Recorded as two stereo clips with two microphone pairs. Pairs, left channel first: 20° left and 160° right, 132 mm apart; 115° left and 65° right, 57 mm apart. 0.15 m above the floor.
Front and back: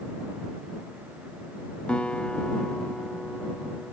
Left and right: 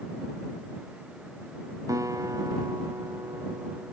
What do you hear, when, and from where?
1.9 s a guitar: 65° right